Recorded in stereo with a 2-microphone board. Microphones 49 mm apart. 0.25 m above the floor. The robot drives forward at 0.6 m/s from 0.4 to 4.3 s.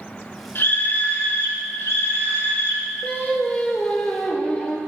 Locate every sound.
0.6 s a scream: 50° left (ahead or behind), 3 m; by 2.9 s 65° left (ahead or behind), 3 m
3.0 s singing: 35° left (ahead or behind), 1.1 m; by 4.8 s 20° left (ahead or behind), 1.7 m